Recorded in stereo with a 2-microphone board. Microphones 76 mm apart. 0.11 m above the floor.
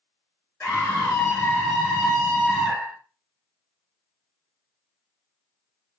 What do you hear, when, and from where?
0.6 s a scream: 25° left (ahead or behind), 1.6 m; by 3.0 s 15° right (ahead or behind), 1.5 m